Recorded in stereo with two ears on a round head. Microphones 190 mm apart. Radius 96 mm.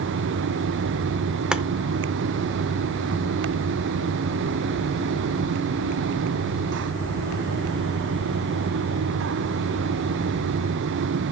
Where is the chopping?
5° right (ahead or behind), 0.5 m.